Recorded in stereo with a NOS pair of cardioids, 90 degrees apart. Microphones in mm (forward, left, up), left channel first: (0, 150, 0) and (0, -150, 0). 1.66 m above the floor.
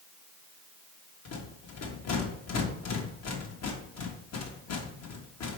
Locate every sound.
1.2 s a rattle: 60° left, 1.8 m